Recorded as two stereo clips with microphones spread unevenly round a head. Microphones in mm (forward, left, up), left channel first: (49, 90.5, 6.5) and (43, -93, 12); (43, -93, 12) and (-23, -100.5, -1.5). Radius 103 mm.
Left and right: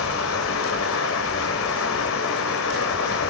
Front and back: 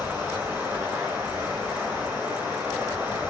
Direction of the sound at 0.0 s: 105° left.